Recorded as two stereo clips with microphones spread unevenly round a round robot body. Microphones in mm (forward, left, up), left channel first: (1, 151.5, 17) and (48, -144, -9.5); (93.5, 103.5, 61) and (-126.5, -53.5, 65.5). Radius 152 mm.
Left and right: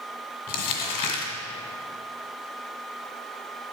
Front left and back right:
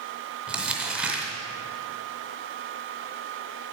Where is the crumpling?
130° left, 2 m.